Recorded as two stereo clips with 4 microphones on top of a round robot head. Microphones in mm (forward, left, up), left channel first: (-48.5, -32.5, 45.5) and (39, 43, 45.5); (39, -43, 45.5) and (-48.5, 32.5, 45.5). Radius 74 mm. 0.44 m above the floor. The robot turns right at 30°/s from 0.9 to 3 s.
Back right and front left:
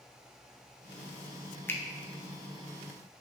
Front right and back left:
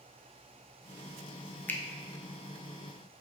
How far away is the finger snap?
About 0.5 m.